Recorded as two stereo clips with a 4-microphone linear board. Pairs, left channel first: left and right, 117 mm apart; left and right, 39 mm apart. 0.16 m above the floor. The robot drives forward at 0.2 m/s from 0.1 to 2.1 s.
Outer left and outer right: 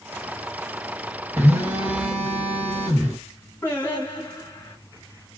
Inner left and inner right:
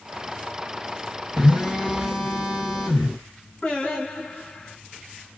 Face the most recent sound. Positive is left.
turn(degrees=15)  # may be behind; listen again after turning